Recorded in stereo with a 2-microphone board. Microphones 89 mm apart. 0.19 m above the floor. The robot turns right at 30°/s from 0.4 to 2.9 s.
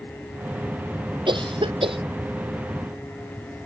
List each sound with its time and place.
1.3 s a cough: 60° right (ahead or behind); by 2.0 s 80° right